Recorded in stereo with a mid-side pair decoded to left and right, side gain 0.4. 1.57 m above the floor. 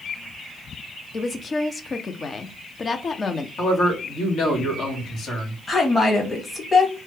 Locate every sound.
1.1 s a woman speaking: 40° left, 0.7 m
3.6 s a man speaking: 70° left, 1.9 m
5.7 s a woman speaking: 30° left, 2 m